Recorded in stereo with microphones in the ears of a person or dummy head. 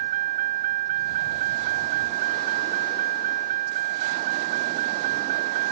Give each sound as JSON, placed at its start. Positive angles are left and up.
{"t": 0.0, "sound": "a vehicle", "side_deg": -40}